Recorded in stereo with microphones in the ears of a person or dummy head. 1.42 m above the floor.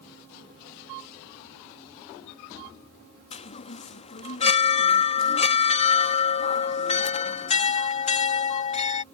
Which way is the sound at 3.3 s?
40° left (ahead or behind).